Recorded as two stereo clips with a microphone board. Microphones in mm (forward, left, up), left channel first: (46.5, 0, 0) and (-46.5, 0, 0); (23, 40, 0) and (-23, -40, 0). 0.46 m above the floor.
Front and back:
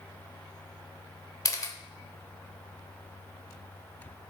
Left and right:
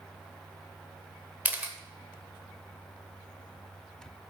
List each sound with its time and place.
1.4 s a camera shutter: 50° right, 0.9 m